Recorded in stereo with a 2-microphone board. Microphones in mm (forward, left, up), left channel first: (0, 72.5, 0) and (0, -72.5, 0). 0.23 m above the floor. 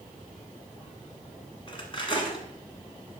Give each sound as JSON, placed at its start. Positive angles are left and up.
{"t": 1.7, "sound": "cutlery clinking", "side_deg": 35, "distance_m": 1.2}